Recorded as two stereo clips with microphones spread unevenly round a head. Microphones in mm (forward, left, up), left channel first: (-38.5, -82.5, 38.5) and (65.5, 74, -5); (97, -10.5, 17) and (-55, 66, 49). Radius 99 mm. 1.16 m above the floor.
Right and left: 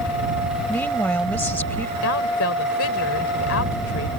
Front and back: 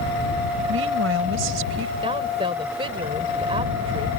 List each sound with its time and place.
0.7 s a woman speaking: 155° left
2.0 s a woman speaking: 140° right